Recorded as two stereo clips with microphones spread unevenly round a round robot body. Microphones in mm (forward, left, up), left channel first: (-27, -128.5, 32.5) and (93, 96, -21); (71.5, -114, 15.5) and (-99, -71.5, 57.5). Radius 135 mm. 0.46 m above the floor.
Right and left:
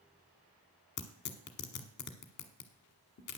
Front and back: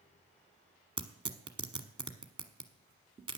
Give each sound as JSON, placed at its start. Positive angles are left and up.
{"t": 1.0, "sound": "tearing paper", "azimuth_deg": -130, "distance_m": 1.1}